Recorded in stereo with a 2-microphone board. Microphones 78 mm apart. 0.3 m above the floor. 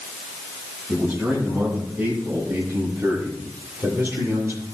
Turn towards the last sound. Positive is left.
turn(degrees=-35)  # may be behind; listen again after turning